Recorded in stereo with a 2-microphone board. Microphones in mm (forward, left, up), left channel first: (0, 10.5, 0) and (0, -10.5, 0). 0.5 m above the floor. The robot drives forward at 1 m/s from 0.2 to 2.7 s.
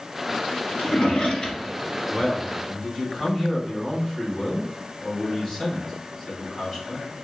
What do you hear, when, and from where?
0.8 s a drawer: 50° left (ahead or behind), 1.7 m; by 2.3 s 25° left (ahead or behind), 3 m
2.1 s a man speaking: 25° left (ahead or behind), 2.5 m; by 7.1 s 20° left (ahead or behind), 3 m